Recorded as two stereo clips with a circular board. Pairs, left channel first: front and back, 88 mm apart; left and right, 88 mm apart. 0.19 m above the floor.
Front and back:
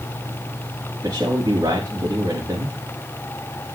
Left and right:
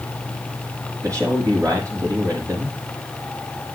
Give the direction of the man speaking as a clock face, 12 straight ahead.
4 o'clock.